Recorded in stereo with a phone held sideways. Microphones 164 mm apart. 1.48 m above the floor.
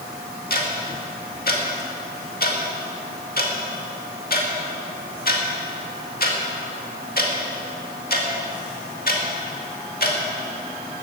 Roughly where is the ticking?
Left.